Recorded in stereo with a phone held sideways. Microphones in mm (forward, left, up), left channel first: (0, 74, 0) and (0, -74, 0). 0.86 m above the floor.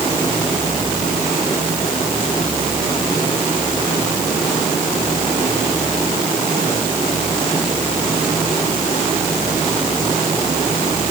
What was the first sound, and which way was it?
Only background noise.